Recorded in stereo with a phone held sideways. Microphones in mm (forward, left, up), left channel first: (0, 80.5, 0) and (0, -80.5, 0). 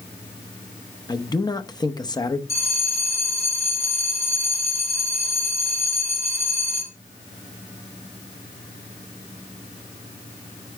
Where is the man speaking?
25° left (ahead or behind), 0.7 m.